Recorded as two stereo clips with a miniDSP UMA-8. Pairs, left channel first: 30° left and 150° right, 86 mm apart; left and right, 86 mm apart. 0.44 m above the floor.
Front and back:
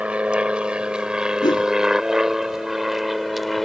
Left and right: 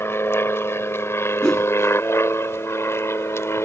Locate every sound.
0.0 s an aircraft: 140° left; by 3.7 s 120° left
1.4 s a whoosh: 10° left